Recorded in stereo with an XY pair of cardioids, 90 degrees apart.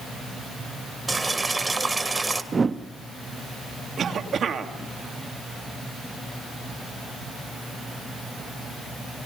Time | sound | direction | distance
1.1 | boiling | 25° right | 2.0 m
2.5 | a whoosh | 35° right | 0.9 m
4.0 | a cough | 60° right | 2.5 m